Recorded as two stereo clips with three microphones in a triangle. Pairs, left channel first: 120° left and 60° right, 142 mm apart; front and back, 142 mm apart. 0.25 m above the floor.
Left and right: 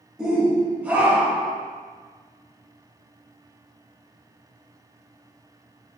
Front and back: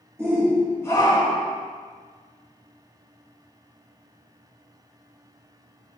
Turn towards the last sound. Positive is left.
turn(degrees=15)